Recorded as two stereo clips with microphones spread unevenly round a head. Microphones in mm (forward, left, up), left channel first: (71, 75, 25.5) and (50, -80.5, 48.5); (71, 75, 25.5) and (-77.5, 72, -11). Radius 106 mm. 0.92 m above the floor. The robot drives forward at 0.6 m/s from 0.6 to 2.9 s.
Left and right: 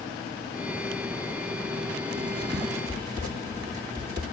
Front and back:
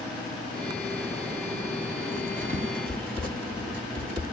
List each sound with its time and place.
2.1 s writing: 170° right, 2.5 m